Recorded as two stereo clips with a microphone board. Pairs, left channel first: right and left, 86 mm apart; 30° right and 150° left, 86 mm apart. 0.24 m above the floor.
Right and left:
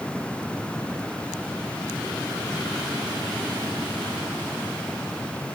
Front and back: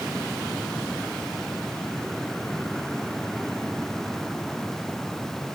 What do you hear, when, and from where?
Only background noise.